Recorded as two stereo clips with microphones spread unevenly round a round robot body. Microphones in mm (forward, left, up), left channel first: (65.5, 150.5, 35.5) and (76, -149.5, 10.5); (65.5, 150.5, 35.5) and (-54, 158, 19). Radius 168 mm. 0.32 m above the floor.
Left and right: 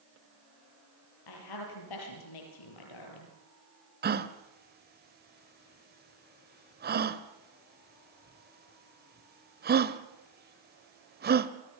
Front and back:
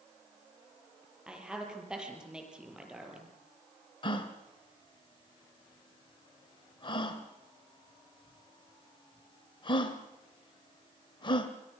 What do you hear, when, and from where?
1.3 s a woman speaking: 95° left, 8 m
4.0 s a gasp: 55° right, 1.4 m